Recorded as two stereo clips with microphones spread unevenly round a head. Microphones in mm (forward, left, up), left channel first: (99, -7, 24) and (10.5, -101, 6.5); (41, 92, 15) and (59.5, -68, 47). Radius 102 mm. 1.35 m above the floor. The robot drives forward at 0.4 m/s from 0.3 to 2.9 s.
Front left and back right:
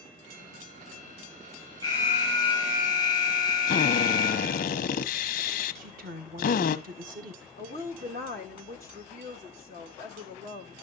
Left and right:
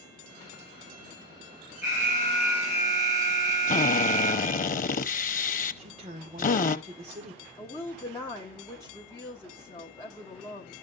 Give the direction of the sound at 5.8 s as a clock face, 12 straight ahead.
5 o'clock.